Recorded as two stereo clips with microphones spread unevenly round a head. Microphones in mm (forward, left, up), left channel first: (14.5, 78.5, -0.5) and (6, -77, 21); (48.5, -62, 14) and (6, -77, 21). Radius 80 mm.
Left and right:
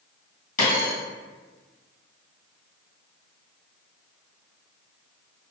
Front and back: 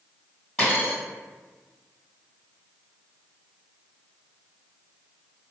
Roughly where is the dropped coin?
Behind left.